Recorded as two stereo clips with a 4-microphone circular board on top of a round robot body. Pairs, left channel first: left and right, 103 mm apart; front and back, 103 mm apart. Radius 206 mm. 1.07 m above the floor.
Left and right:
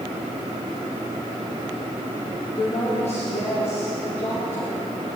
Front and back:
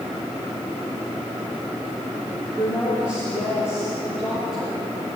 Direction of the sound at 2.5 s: 105° left.